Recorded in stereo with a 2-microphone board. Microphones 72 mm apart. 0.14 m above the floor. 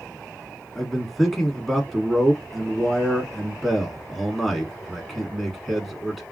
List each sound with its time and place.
0.8 s a man speaking: centre (ahead or behind), 1.1 m